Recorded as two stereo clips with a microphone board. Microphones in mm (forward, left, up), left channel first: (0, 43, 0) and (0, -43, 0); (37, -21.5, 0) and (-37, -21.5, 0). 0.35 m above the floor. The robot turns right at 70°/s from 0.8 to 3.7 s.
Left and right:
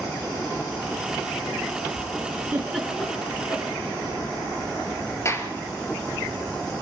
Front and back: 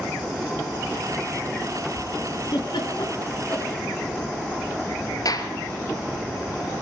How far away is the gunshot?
About 2.5 m.